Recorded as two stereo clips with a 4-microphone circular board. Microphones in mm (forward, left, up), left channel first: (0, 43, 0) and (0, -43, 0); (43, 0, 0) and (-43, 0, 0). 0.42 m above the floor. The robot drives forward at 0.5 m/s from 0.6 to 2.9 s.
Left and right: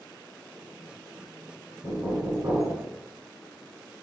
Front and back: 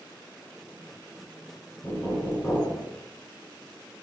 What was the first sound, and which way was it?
Knocking, 50° right.